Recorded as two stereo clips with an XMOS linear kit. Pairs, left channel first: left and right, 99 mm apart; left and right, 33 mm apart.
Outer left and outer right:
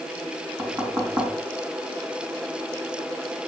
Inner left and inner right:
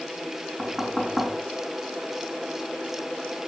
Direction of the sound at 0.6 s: 30° right (ahead or behind).